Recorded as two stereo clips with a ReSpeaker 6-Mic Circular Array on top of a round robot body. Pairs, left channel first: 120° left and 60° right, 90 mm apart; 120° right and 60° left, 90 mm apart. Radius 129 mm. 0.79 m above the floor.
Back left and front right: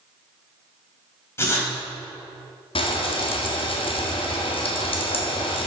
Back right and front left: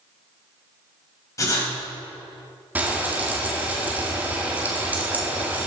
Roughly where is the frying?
Behind left.